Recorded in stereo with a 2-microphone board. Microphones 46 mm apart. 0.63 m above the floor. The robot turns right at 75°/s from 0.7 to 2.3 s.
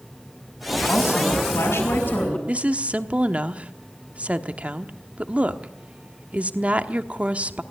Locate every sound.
0.9 s a woman speaking: 35° left, 6.5 m; by 2.4 s 145° left, 6.5 m
2.5 s a woman speaking: 30° right (ahead or behind), 1.1 m